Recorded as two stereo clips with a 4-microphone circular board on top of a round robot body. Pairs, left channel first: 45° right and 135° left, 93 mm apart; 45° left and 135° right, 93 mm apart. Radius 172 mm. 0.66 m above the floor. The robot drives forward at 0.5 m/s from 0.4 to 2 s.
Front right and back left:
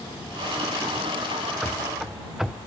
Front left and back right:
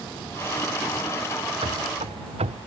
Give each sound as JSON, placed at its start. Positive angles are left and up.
{"t": 1.6, "sound": "running footsteps", "azimuth_deg": -140}